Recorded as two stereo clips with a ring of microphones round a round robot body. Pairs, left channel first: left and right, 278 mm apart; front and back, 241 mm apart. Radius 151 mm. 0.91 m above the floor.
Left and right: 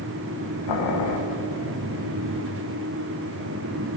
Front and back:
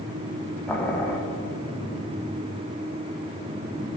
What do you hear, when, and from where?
0.7 s boiling: 85° left, 1.4 m